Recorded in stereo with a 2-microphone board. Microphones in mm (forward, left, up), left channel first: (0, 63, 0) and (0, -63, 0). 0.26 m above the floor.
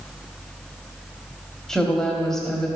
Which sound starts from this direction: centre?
A woman speaking, at 1.7 s.